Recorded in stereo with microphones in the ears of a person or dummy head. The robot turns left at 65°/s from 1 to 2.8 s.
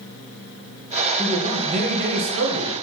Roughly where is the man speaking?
Ahead.